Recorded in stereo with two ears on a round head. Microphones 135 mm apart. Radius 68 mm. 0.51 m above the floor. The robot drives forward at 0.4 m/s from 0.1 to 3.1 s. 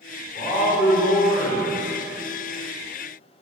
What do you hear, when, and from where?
0.3 s a man speaking: 40° left (ahead or behind), 1.4 m; by 1.8 s 50° left (ahead or behind), 1.2 m